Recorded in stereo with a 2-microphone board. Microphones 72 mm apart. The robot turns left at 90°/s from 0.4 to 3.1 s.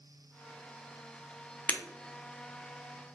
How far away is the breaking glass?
About 0.5 m.